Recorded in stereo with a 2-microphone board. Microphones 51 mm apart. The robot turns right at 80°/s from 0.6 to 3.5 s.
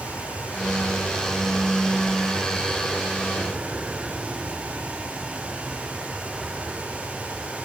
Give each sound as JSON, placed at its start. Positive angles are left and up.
{"t": 0.0, "sound": "an aircraft", "side_deg": 55}